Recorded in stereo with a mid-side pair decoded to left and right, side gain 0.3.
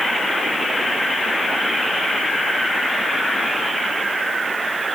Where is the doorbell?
I don't hear a doorbell.